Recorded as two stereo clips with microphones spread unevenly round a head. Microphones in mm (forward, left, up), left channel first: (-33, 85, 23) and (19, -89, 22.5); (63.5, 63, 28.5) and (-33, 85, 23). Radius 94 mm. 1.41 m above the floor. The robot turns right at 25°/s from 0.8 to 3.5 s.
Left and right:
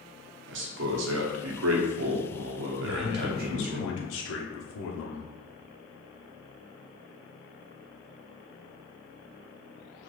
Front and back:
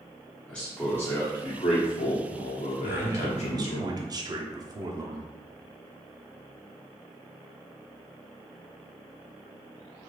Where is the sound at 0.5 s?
95° right, 0.7 m; by 3.8 s 30° right, 0.7 m.